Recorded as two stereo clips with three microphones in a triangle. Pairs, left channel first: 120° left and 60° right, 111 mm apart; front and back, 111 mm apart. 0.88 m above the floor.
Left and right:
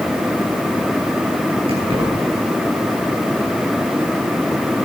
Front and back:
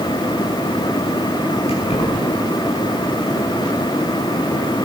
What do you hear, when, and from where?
1.7 s keys jangling: 25° right, 5 m